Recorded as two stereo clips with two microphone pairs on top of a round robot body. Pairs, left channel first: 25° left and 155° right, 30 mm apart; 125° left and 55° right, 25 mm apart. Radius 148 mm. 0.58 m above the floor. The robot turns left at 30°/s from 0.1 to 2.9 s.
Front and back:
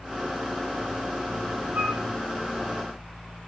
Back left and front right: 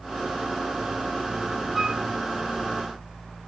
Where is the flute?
140° right, 6 m; by 2.0 s 150° right, 6 m.